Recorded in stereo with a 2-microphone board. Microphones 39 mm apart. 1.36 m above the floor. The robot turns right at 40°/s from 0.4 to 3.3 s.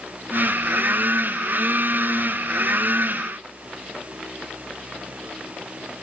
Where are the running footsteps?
I don't hear running footsteps.